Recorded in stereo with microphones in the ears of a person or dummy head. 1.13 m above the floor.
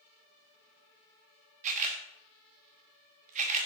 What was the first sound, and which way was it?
A camera shutter, 45° right (ahead or behind).